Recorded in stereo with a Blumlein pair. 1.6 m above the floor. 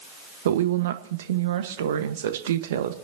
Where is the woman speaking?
60° right, 1.3 m.